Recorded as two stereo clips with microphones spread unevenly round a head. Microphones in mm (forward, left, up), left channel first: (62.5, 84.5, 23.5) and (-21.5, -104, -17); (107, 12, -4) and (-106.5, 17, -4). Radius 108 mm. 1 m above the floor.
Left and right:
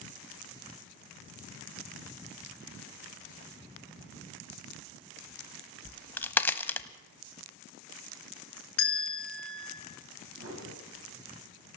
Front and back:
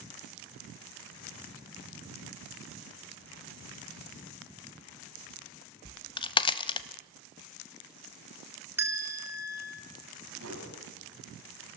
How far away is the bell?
About 3 m.